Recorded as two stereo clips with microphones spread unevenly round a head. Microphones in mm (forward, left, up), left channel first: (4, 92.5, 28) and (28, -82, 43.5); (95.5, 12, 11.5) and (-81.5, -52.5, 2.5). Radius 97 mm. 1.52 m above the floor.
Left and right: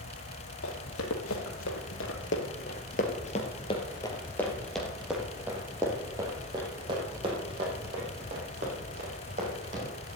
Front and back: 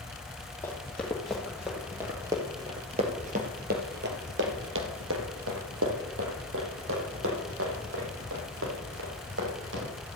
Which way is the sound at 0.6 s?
100° left.